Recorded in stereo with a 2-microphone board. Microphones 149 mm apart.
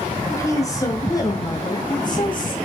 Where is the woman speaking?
20° left (ahead or behind), 5 m; by 2.6 s 35° left (ahead or behind), 3.5 m.